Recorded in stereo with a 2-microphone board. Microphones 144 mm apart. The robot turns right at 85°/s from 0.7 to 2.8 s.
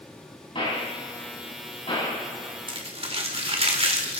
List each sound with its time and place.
0.6 s a gunshot: 35° left (ahead or behind), 6.5 m; by 2.6 s 15° right (ahead or behind), 6.5 m
2.7 s crumpling: 35° right (ahead or behind), 1.8 m; by 4.2 s 45° right (ahead or behind), 1.8 m